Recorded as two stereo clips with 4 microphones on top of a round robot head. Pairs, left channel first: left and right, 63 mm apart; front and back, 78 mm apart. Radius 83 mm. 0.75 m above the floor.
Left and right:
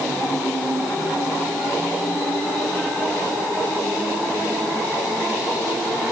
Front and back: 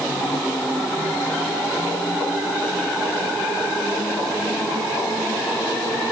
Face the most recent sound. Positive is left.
No sound to turn to.